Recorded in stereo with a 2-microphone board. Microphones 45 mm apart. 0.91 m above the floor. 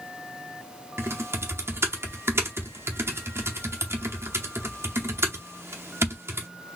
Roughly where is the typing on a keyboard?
Right.